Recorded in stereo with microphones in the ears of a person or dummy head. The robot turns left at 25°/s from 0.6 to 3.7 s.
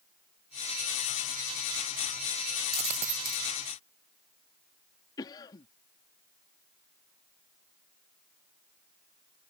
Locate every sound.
2.7 s a dropped coin: 35° right (ahead or behind); by 3.5 s 50° right (ahead or behind)
5.2 s a cough: 25° left (ahead or behind)